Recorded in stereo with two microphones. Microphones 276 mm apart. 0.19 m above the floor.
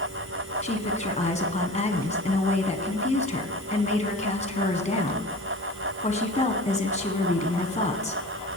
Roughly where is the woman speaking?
Left.